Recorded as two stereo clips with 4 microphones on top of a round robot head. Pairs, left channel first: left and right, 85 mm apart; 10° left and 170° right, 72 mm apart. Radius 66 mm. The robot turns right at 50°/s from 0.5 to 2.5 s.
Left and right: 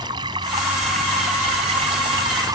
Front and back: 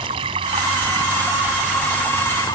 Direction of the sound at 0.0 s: 145° right.